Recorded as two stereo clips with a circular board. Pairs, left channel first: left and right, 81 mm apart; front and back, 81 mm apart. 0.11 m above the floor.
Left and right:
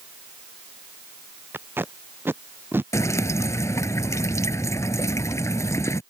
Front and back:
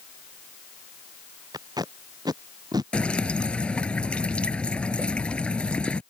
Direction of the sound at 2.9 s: 70° left.